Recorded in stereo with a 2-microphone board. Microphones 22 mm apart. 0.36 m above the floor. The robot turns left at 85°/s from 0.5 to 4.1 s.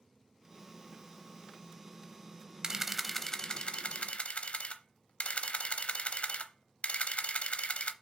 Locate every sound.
2.6 s a camera shutter: 155° right, 0.7 m; by 7.9 s 80° left, 0.7 m